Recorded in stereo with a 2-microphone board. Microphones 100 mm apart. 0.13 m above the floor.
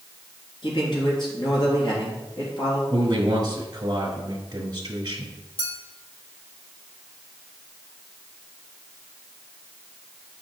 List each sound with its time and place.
0.6 s a man speaking: 50° left (ahead or behind), 3 m
2.9 s a man speaking: 40° right (ahead or behind), 1.4 m
5.6 s a clink: 65° left (ahead or behind), 2.5 m